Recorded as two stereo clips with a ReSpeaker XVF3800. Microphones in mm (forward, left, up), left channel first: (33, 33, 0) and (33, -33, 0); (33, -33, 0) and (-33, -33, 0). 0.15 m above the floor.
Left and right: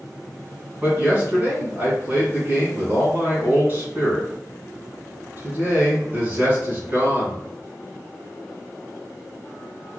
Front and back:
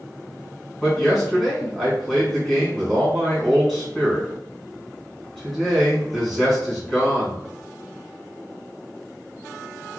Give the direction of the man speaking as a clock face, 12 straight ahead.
3 o'clock.